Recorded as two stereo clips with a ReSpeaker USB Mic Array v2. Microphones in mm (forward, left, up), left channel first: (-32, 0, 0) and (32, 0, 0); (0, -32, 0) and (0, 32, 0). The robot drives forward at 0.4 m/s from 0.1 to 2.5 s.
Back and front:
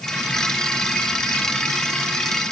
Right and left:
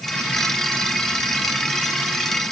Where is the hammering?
I don't hear hammering.